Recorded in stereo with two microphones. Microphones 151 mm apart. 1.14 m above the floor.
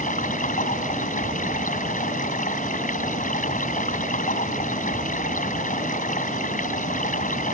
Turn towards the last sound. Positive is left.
turn(degrees=60)  # may be behind; listen again after turning